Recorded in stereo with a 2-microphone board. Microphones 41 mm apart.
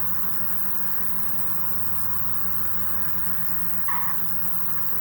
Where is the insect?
55° left (ahead or behind), 0.8 m.